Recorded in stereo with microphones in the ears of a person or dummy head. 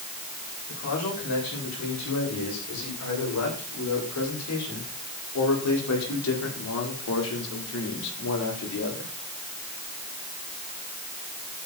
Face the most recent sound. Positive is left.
turn(degrees=60)  # may be behind; listen again after turning